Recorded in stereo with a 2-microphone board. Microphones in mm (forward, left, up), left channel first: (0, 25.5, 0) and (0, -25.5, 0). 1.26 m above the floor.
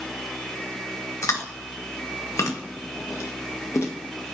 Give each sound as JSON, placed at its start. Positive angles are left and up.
{"t": 1.2, "sound": "chewing", "side_deg": 80, "distance_m": 1.7}